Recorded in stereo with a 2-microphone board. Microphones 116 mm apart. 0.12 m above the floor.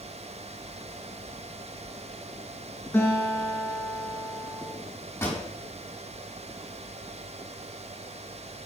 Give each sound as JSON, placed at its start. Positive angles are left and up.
{"t": 2.9, "sound": "a guitar", "side_deg": 20, "distance_m": 5.0}
{"t": 5.2, "sound": "a pop", "side_deg": 15, "distance_m": 5.0}